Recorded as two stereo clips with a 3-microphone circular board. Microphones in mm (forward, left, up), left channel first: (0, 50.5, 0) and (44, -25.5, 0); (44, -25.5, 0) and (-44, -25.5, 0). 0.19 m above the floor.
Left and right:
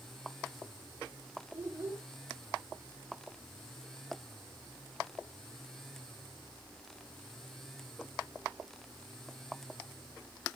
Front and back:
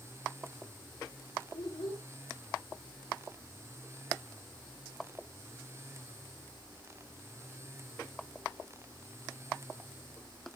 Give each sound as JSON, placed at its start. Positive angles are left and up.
{"t": 1.5, "sound": "a child speaking", "azimuth_deg": 5, "distance_m": 6.5}